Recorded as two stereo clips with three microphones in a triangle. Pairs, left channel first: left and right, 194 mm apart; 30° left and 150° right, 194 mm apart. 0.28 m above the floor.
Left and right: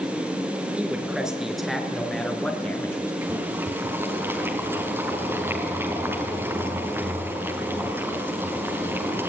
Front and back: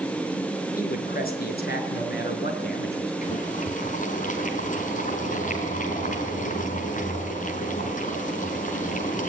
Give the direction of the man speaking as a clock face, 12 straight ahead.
12 o'clock.